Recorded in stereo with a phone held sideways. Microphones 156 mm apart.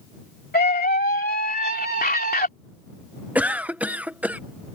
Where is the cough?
10° right (ahead or behind).